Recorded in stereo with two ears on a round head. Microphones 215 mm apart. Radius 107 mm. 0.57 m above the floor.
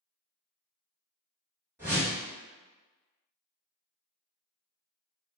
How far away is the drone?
I don't hear a drone.